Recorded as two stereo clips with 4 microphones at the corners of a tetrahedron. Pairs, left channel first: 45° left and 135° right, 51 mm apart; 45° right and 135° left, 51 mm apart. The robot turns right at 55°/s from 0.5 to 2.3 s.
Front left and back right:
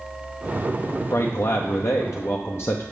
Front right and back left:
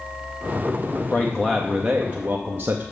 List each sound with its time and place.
1.1 s a man speaking: 20° left, 0.7 m; by 2.8 s 85° left, 0.7 m